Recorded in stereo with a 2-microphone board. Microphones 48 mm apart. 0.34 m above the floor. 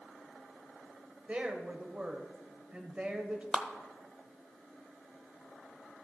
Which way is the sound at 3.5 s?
15° right (ahead or behind).